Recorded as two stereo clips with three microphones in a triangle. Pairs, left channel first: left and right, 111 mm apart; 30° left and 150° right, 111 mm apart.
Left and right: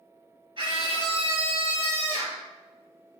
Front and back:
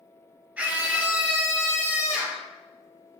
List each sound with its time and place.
0.6 s a scream: 75° right, 2 m